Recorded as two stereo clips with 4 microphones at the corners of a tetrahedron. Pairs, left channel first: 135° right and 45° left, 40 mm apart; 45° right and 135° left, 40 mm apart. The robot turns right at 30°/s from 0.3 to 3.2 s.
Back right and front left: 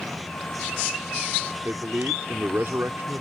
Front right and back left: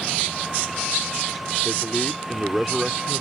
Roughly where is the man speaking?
Ahead.